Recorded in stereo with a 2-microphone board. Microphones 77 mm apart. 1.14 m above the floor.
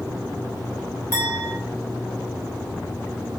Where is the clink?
35° left (ahead or behind), 1.8 m.